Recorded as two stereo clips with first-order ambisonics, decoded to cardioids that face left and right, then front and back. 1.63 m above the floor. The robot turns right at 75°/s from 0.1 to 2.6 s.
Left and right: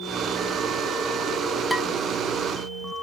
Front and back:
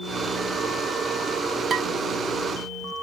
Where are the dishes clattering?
175° left, 0.7 m; by 1.9 s 170° right, 0.7 m.